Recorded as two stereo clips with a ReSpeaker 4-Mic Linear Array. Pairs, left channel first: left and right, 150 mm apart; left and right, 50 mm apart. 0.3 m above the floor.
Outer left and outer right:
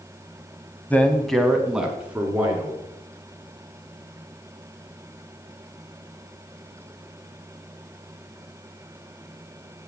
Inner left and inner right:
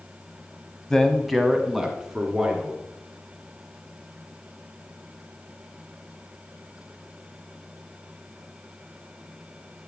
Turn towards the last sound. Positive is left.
turn(degrees=-10)  # may be behind; listen again after turning